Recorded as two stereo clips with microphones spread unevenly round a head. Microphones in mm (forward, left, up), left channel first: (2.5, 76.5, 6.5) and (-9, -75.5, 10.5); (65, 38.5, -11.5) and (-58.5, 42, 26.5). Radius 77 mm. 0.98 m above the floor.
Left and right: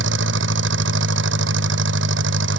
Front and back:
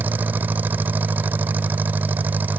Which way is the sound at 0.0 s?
105° right.